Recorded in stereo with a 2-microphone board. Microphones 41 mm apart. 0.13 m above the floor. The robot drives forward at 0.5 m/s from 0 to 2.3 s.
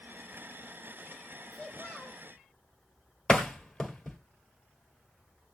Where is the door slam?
10° left (ahead or behind), 1.9 m.